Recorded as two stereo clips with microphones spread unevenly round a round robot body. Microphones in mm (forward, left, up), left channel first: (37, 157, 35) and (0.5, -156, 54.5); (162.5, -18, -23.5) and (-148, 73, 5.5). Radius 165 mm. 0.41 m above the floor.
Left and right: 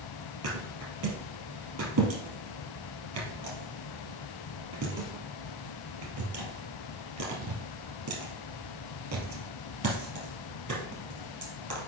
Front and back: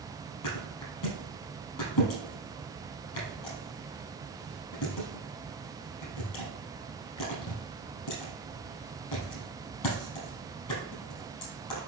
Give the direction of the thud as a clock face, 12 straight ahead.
2 o'clock.